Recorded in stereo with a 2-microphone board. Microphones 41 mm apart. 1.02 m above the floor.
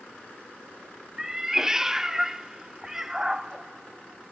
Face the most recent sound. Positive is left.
turn(degrees=-10)  # may be behind; listen again after turning